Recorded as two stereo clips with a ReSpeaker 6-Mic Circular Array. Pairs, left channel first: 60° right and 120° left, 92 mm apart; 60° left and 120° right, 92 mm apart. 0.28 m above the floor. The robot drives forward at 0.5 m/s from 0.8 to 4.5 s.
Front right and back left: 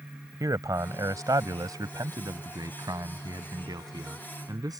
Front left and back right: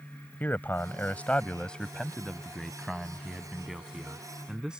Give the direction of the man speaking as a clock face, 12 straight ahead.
8 o'clock.